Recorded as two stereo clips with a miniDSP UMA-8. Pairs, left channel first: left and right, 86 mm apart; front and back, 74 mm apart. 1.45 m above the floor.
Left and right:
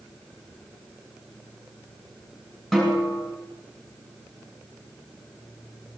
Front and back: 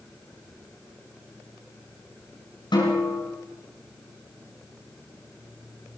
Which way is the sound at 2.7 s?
Straight ahead.